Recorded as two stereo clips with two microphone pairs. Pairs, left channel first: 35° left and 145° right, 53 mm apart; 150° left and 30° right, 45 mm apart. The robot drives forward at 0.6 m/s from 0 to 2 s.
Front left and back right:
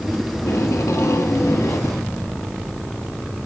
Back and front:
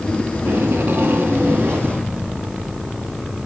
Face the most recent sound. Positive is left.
turn(degrees=30)